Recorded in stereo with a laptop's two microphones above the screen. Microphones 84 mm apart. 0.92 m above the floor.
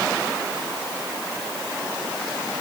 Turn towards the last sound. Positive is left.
No sound to turn to.